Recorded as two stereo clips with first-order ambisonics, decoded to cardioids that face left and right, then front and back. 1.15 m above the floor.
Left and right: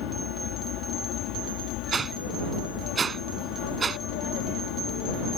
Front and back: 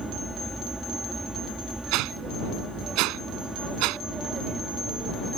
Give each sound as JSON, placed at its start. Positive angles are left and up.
{"t": 0.0, "sound": "an aircraft", "azimuth_deg": 95}
{"t": 1.9, "sound": "a whoosh", "azimuth_deg": -160}